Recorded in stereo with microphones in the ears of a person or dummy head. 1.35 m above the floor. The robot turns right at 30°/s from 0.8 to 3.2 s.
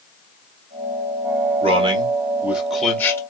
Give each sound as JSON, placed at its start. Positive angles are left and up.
{"t": 1.6, "sound": "a man speaking", "azimuth_deg": -35, "distance_m": 1.8}